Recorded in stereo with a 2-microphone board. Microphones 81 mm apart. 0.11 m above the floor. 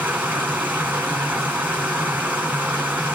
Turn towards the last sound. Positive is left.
turn(degrees=-20)  # may be behind; listen again after turning